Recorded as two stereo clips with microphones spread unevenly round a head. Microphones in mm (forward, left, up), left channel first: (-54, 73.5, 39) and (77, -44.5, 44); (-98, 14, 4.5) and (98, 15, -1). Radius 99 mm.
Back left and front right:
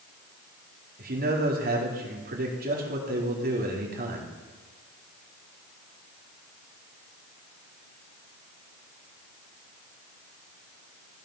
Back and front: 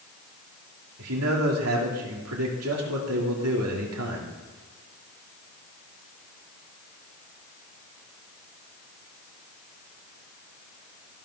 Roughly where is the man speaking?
Ahead.